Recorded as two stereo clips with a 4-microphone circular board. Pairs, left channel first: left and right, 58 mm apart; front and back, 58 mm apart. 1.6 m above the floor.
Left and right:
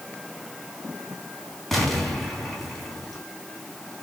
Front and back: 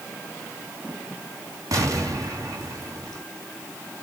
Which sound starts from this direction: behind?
An explosion, at 1.7 s.